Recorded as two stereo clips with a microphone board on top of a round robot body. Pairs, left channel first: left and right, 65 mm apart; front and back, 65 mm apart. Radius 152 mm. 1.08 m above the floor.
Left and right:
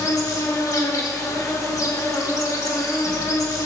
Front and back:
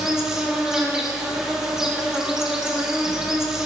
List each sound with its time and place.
0.0 s an insect: 100° left, 1.6 m